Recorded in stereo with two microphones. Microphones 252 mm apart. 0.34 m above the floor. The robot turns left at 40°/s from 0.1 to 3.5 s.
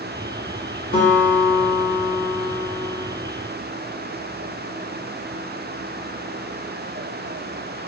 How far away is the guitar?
About 1.0 m.